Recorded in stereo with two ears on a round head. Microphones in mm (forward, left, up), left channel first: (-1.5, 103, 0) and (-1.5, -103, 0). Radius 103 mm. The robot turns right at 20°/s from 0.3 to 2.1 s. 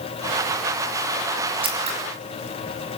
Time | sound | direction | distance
1.6 | scissors | 25° right (ahead or behind) | 5 m